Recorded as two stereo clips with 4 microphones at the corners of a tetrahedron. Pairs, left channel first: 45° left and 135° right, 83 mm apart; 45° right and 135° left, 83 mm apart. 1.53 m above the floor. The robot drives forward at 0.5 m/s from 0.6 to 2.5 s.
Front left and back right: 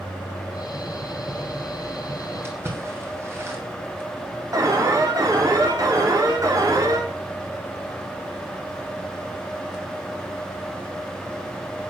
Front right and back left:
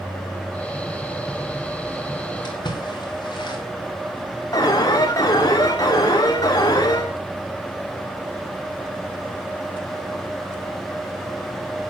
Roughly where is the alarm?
Right.